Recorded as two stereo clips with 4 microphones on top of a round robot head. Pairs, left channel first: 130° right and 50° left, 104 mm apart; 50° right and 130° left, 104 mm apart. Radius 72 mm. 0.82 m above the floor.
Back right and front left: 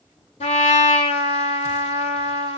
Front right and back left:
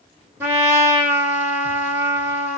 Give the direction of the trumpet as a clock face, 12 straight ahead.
5 o'clock.